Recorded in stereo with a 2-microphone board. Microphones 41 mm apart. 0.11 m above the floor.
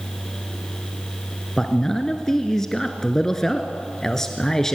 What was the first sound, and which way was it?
A man speaking, 15° left (ahead or behind).